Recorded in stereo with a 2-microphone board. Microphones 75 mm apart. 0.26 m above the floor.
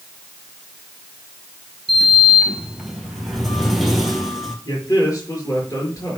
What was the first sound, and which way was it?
A sliding door, centre (ahead or behind).